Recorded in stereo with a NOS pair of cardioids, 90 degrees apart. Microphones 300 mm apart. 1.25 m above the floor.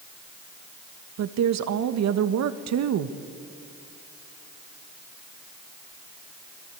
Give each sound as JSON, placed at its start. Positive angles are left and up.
{"t": 1.2, "sound": "a woman speaking", "azimuth_deg": -65, "distance_m": 1.4}